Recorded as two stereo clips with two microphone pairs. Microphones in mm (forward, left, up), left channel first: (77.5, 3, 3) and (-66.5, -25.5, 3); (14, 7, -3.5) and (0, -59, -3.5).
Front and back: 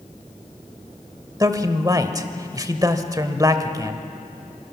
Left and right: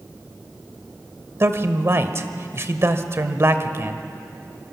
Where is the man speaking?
115° right, 1.3 m.